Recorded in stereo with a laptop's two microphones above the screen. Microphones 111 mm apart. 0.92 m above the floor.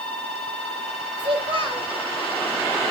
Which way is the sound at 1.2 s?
50° right (ahead or behind).